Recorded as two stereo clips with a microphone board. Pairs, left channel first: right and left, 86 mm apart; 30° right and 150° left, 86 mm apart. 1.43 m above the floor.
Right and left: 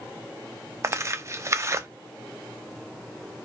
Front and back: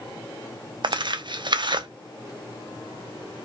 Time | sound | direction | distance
0.8 | tearing paper | 140° left | 0.5 m